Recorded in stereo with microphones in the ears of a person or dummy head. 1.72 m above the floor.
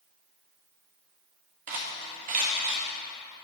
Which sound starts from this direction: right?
Cutlery clinking, at 1.7 s.